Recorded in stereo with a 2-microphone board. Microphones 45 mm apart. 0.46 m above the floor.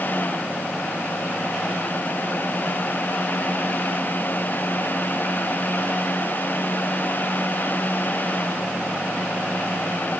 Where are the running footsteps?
I don't hear running footsteps.